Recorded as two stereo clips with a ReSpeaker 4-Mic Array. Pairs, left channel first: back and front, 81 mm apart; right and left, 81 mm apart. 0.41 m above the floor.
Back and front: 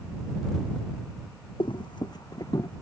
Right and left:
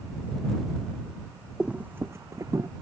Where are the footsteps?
170° left; by 2.7 s 135° left.